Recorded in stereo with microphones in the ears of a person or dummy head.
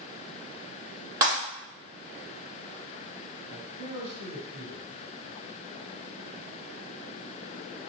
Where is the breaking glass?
30° right (ahead or behind), 1.8 m.